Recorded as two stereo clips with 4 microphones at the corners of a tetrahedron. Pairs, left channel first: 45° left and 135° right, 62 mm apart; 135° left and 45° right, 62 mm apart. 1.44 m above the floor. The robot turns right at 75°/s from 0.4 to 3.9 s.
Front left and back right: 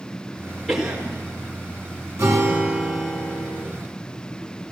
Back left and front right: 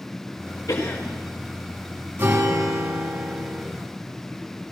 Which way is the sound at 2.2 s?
105° right.